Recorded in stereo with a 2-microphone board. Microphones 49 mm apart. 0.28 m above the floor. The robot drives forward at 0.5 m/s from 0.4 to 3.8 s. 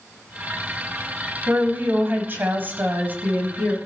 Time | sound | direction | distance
1.5 | a woman speaking | 45° right (ahead or behind) | 1.3 m